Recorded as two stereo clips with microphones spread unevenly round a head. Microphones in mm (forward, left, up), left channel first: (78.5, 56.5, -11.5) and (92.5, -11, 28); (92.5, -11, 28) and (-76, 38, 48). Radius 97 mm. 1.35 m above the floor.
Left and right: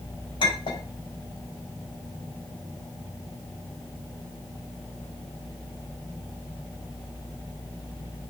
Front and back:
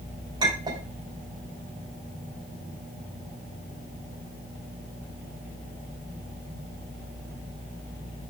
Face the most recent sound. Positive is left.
turn(degrees=100)